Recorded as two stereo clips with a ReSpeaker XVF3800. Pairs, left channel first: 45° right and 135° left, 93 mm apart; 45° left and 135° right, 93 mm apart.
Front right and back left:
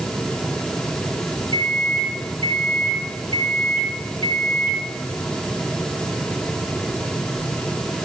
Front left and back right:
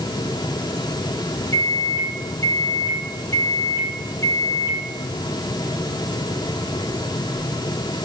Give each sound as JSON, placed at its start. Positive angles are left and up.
{"t": 1.5, "sound": "a microwave", "azimuth_deg": -10, "distance_m": 4.5}